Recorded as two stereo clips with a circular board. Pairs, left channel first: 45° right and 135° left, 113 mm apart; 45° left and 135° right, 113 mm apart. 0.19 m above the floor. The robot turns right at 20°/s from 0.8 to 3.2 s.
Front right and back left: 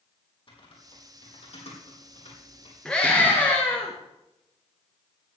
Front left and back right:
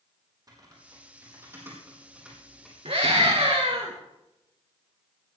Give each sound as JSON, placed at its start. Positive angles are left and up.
{"t": 0.5, "sound": "typing on a keyboard", "azimuth_deg": -80, "distance_m": 4.5}
{"t": 2.9, "sound": "a scream", "azimuth_deg": -125, "distance_m": 3.0}